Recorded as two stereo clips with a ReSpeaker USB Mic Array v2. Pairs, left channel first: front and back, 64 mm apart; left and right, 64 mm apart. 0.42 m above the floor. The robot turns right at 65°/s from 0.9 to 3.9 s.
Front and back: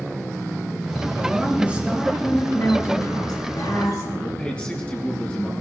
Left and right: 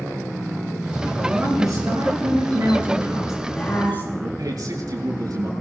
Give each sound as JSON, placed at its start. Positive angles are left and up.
{"t": 1.2, "sound": "a woman speaking", "azimuth_deg": -145, "distance_m": 5.5}
{"t": 4.2, "sound": "a man speaking", "azimuth_deg": -70, "distance_m": 5.5}